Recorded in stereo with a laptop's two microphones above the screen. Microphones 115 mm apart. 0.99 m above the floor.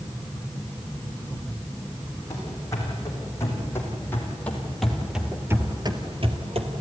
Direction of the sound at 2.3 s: 30° left (ahead or behind).